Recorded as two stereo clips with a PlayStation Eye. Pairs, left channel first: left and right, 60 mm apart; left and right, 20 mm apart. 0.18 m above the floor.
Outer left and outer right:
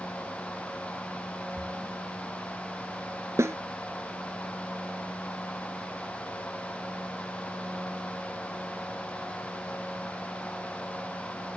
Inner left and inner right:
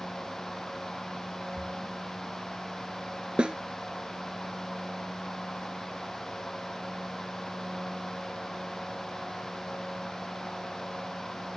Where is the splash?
15° right (ahead or behind).